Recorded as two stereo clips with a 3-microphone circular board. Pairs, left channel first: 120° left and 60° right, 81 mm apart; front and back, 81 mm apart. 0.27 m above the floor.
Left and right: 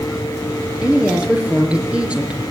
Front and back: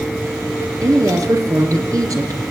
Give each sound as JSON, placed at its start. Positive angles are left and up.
{"t": 0.8, "sound": "a woman speaking", "azimuth_deg": -135, "distance_m": 4.5}